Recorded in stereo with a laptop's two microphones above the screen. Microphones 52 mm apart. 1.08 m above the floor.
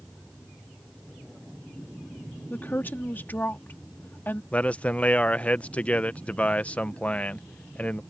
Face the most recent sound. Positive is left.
turn(degrees=25)  # may be behind; listen again after turning